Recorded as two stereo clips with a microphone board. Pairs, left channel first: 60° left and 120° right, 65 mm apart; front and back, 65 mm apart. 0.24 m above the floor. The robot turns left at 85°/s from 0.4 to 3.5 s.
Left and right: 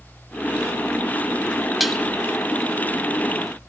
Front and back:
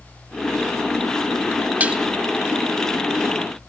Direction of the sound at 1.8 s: 155° left.